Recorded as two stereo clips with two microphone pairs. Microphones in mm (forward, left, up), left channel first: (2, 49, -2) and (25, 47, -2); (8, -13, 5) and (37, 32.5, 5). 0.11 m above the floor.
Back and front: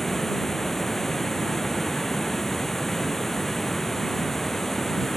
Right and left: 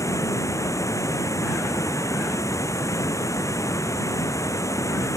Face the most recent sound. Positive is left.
turn(degrees=-110)